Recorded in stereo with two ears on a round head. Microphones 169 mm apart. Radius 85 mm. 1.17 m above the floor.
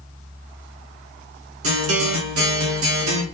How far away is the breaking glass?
I don't hear breaking glass.